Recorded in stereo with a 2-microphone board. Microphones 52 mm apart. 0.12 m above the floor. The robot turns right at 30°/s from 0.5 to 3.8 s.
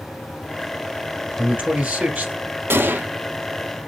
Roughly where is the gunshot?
Right.